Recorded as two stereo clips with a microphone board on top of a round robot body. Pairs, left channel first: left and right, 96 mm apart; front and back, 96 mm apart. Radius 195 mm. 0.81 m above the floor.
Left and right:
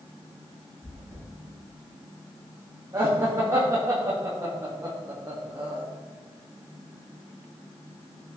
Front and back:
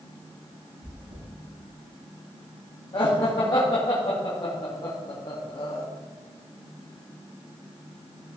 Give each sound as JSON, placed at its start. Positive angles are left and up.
{"t": 0.8, "sound": "chewing", "azimuth_deg": 180, "distance_m": 5.0}
{"t": 2.9, "sound": "laughter", "azimuth_deg": -35, "distance_m": 2.5}